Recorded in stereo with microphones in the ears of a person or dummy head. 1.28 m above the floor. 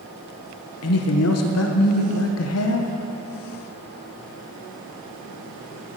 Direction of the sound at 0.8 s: 70° left (ahead or behind).